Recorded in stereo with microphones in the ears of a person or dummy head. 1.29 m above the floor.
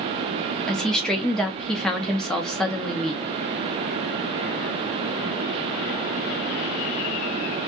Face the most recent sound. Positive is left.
turn(degrees=0)  # may be behind; listen again after turning